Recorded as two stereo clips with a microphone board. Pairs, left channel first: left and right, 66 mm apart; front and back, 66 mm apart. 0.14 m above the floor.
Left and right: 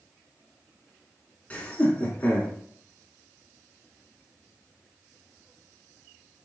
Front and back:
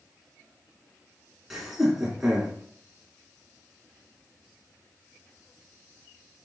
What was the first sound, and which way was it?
Laughter, 100° left.